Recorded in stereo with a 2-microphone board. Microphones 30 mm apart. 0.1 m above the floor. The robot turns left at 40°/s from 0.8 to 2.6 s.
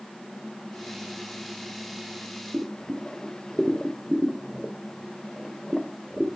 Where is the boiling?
5° right (ahead or behind), 0.9 m; by 6.4 s centre (ahead or behind), 0.9 m.